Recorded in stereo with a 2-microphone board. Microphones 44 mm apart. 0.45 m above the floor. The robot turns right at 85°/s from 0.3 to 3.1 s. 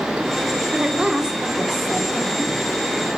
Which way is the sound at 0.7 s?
20° right (ahead or behind).